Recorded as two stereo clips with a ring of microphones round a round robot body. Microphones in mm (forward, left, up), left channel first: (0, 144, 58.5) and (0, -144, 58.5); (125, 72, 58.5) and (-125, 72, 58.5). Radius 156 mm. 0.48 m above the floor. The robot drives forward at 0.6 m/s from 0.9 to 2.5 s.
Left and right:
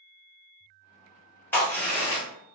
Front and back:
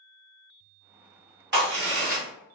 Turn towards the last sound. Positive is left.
turn(degrees=175)